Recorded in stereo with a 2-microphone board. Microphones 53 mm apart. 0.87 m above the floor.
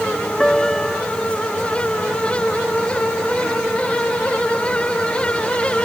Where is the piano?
10° left (ahead or behind).